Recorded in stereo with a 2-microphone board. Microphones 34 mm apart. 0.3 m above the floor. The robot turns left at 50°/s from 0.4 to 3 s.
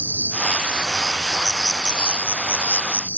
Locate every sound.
0.0 s an insect: 135° right; by 3.2 s 95° left